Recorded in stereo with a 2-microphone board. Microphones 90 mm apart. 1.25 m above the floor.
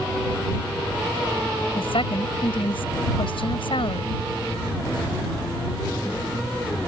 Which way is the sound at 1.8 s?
80° left.